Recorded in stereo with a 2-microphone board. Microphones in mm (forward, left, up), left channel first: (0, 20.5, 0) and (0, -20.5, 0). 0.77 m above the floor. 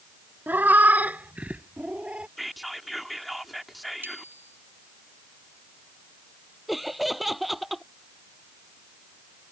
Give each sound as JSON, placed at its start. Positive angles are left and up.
{"t": 0.5, "sound": "a cat meowing", "side_deg": -50}
{"t": 2.4, "sound": "whispering", "side_deg": 0}
{"t": 4.0, "sound": "a bicycle bell", "side_deg": -60}
{"t": 6.7, "sound": "laughter", "side_deg": -5}